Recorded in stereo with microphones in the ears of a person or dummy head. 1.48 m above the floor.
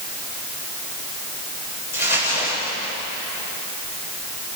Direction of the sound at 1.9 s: 55° left (ahead or behind).